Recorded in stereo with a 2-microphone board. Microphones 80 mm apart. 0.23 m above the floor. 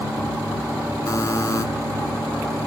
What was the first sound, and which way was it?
A buzzer, 45° left (ahead or behind).